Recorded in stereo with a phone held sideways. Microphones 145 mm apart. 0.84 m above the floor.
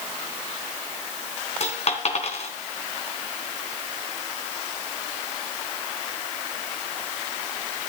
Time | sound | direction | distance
1.6 | a dropped coin | 55° left (ahead or behind) | 3 m